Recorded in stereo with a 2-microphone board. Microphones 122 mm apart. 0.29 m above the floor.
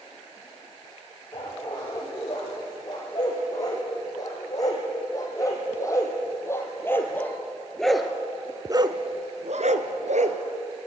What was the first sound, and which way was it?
A dog barking, 35° left (ahead or behind).